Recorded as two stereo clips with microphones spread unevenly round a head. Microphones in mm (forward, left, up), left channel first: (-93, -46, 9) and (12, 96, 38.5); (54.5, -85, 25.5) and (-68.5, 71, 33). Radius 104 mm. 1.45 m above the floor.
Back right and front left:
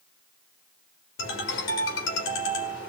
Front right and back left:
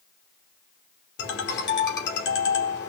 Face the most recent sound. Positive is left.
turn(degrees=-90)